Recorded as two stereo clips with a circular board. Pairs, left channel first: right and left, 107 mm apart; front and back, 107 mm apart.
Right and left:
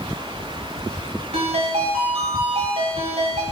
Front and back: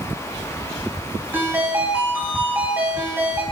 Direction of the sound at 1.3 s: 105° left.